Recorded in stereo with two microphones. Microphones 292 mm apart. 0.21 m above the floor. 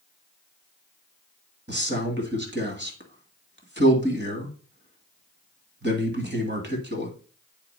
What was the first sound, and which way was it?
A man speaking, 35° right (ahead or behind).